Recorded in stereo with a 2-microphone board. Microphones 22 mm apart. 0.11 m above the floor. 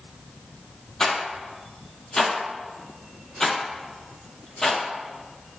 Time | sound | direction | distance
1.0 | a rattle | 30° left (ahead or behind) | 0.6 m